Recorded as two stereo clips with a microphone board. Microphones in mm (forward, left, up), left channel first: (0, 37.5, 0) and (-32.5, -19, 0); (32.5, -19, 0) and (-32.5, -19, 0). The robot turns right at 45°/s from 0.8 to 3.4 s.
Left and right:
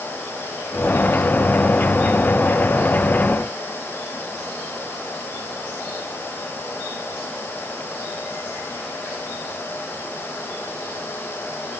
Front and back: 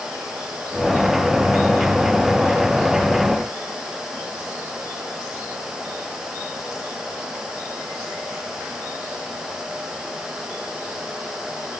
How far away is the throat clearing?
No throat clearing in this recording.